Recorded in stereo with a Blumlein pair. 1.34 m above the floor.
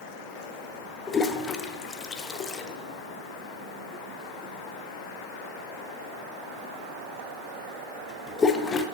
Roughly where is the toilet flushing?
Ahead.